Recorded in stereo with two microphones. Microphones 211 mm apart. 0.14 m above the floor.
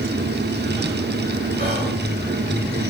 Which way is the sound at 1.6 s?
50° right (ahead or behind).